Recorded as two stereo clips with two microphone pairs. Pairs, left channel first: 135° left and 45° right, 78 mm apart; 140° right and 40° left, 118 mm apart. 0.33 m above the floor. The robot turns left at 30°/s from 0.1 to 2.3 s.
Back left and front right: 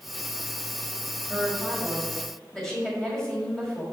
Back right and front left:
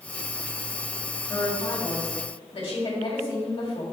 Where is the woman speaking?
115° right, 1.6 m; by 3.8 s 145° right, 1.6 m.